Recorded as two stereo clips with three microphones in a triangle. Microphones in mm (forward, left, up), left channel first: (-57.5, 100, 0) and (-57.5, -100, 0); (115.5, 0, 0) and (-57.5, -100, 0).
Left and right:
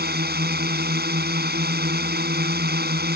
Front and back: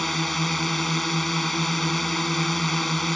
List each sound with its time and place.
0.0 s a drone: 60° right